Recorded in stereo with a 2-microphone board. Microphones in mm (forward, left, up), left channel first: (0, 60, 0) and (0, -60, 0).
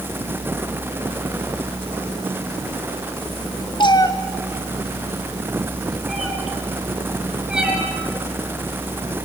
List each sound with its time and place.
3.8 s a cat meowing: 40° left (ahead or behind), 1.5 m; by 7.8 s 10° right (ahead or behind), 5 m